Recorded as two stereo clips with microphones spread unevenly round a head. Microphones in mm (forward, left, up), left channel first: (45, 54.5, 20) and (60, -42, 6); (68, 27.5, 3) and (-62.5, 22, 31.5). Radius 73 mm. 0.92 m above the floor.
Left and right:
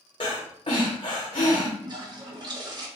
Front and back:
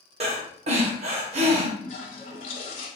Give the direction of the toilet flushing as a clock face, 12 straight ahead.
1 o'clock.